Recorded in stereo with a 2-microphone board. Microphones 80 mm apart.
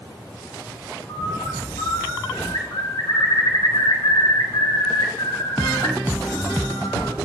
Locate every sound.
1.1 s a bird: 60° left (ahead or behind), 2.5 m